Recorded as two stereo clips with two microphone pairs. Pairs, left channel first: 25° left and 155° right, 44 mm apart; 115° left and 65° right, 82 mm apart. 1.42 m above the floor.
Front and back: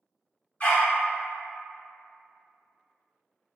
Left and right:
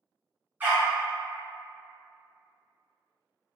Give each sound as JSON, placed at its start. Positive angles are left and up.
{"t": 0.6, "sound": "a dog barking", "azimuth_deg": -5, "distance_m": 1.0}